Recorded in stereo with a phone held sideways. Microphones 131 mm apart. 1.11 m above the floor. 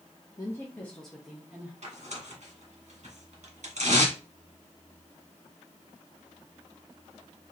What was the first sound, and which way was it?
A woman speaking, 30° left (ahead or behind).